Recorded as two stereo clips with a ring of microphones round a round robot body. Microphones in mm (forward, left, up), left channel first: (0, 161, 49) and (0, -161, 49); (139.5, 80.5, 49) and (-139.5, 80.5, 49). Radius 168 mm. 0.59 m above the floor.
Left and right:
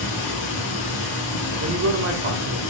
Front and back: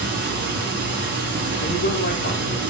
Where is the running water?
125° left, 2.5 m.